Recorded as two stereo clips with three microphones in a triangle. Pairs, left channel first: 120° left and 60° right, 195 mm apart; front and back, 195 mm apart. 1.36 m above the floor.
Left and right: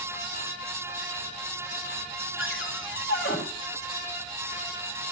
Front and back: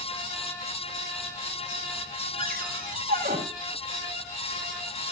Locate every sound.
2.4 s a cupboard door: 135° left, 3.5 m